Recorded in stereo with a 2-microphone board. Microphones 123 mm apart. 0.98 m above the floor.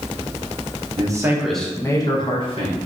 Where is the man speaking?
35° right (ahead or behind), 0.9 m; by 2.8 s 55° left (ahead or behind), 1.5 m.